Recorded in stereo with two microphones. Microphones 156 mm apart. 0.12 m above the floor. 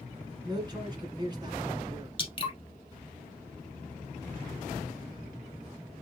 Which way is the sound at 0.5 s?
25° right (ahead or behind).